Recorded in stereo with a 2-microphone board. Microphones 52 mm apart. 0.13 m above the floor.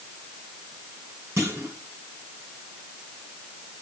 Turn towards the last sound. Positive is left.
turn(degrees=-55)  # may be behind; listen again after turning